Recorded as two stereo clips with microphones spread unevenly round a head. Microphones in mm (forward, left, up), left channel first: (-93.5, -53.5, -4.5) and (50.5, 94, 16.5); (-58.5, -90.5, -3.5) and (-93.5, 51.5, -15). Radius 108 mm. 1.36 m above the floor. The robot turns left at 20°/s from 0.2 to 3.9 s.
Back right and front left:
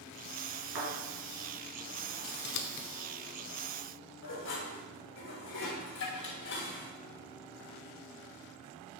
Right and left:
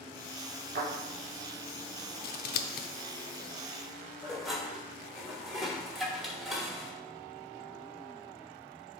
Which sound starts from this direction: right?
Scissors, at 2.2 s.